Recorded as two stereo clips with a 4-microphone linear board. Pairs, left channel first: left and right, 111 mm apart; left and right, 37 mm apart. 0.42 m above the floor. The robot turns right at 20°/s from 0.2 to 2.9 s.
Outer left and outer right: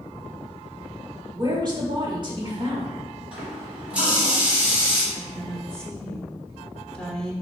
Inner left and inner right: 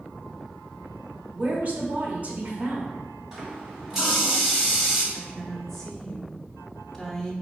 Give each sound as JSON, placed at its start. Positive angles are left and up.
{"t": 1.3, "sound": "a woman speaking", "azimuth_deg": -115, "distance_m": 1.1}
{"t": 3.3, "sound": "a running tap", "side_deg": -10, "distance_m": 1.7}
{"t": 5.1, "sound": "a woman speaking", "side_deg": 5, "distance_m": 0.8}